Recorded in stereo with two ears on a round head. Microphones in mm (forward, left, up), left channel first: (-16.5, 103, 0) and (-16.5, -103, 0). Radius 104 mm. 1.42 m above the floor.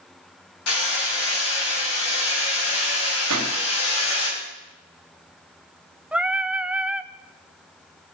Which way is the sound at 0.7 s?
65° left (ahead or behind).